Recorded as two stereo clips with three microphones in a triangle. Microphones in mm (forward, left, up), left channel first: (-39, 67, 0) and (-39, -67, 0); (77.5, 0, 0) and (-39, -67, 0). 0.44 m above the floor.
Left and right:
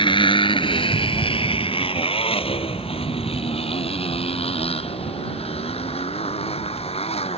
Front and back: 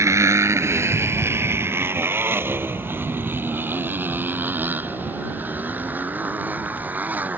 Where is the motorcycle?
140° left; by 7.4 s 130° left.